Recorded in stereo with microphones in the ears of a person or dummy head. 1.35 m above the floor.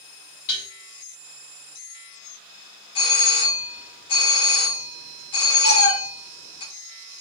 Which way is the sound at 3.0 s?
25° left (ahead or behind).